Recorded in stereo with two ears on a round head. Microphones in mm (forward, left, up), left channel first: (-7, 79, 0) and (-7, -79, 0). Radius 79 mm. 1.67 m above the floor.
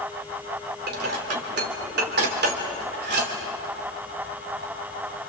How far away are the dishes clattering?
About 3.5 m.